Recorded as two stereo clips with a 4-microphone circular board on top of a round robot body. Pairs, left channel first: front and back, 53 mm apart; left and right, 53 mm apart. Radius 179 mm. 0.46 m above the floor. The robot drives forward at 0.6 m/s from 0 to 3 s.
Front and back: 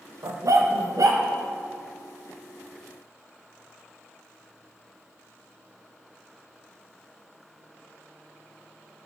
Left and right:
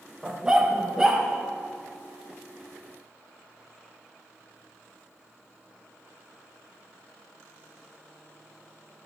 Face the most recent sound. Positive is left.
turn(degrees=-175)